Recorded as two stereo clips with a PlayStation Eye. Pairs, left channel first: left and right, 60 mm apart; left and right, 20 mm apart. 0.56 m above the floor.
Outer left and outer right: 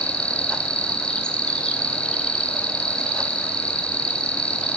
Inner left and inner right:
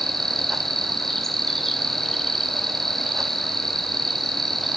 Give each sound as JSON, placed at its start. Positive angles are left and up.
{"t": 0.0, "sound": "an insect", "side_deg": 15, "distance_m": 3.5}